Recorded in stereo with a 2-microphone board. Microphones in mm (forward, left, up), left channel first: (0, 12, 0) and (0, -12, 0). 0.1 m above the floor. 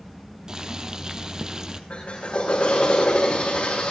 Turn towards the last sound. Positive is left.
turn(degrees=55)  # may be behind; listen again after turning